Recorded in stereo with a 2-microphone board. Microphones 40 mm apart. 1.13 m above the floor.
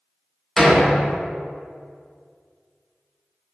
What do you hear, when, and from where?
0.6 s a door slam: 10° left (ahead or behind), 0.9 m